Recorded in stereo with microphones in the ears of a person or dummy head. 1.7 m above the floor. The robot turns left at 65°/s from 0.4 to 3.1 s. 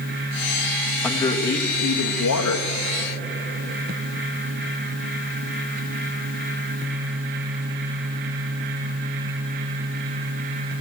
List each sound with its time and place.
1.0 s a man speaking: straight behind, 1.3 m; by 2.7 s 75° left, 1.3 m